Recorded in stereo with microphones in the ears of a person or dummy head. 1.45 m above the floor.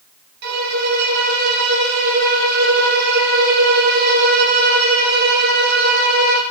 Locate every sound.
0.4 s a violin: 60° right (ahead or behind), 0.6 m